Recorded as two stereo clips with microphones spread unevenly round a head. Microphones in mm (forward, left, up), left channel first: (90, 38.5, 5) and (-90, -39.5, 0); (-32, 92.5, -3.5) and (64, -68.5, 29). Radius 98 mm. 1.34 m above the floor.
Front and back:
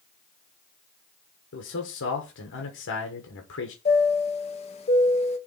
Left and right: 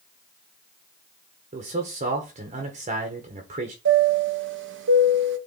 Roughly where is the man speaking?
Ahead.